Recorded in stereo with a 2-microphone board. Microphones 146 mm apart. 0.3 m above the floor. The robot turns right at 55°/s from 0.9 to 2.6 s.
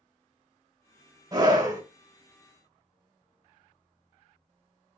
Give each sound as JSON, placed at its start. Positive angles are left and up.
{"t": 1.3, "sound": "a scream", "side_deg": -25, "distance_m": 1.4}